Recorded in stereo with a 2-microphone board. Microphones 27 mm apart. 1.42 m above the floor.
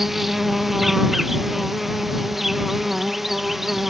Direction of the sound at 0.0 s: 5° right (ahead or behind).